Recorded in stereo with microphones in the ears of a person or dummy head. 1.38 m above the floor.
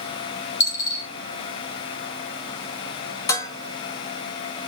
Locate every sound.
0.6 s a dropped coin: 15° left (ahead or behind), 1.8 m
3.3 s dishes clattering: 20° left (ahead or behind), 0.6 m